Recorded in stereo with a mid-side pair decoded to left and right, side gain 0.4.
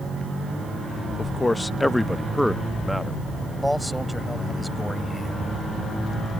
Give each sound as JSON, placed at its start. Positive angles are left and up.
{"t": 1.2, "sound": "a man speaking", "azimuth_deg": 25}
{"t": 3.6, "sound": "a man speaking", "azimuth_deg": 0}